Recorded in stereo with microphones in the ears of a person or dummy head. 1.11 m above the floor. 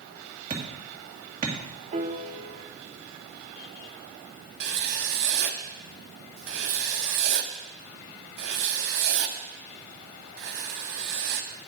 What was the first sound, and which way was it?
Hammering, 30° right (ahead or behind).